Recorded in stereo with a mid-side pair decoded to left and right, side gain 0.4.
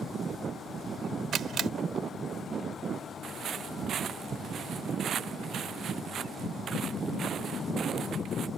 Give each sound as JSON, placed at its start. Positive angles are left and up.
{"t": 1.3, "sound": "a camera shutter", "azimuth_deg": -65}
{"t": 3.2, "sound": "footsteps", "azimuth_deg": -65}